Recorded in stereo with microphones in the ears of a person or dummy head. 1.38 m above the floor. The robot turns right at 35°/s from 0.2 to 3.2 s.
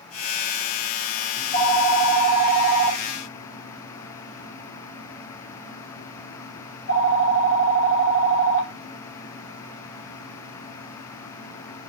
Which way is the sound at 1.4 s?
25° left.